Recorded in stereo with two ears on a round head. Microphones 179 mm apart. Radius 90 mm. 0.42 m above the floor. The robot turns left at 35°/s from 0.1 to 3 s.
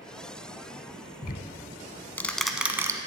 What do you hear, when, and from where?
1.2 s ticking: 45° left (ahead or behind), 0.7 m; by 3.0 s 15° right (ahead or behind), 0.7 m